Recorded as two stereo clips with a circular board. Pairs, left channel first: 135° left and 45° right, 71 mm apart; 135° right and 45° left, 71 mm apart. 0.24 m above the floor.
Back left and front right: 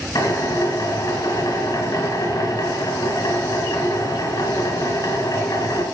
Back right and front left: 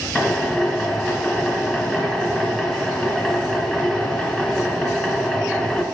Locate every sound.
0.1 s a drill: 145° left, 2 m